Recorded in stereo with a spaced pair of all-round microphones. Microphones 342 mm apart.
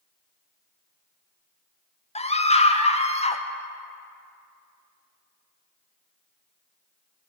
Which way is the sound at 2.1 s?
20° left (ahead or behind).